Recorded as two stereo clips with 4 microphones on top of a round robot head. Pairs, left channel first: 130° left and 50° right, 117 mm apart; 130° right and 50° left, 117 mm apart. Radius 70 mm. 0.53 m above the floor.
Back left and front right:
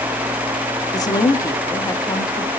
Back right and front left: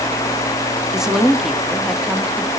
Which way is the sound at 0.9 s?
130° left.